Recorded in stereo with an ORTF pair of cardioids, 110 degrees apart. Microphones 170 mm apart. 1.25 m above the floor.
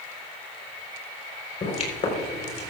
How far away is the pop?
About 3.5 m.